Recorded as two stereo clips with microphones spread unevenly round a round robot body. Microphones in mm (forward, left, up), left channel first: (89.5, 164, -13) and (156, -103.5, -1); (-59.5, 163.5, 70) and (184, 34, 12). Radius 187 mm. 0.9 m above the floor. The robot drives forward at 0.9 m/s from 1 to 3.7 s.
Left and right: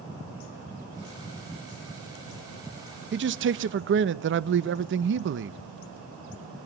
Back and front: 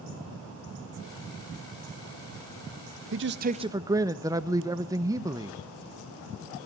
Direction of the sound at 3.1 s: 30° right.